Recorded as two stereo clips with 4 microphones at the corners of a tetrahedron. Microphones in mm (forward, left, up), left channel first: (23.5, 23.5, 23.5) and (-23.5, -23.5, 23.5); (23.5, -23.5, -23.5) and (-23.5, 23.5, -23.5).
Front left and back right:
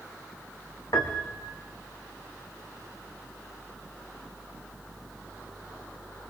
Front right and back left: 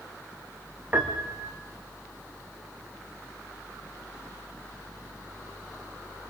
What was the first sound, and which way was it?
A piano, 70° left.